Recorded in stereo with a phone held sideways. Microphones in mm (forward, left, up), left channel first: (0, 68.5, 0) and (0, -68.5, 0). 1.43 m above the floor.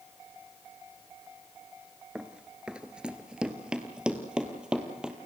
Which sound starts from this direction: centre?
Running footsteps, at 2.1 s.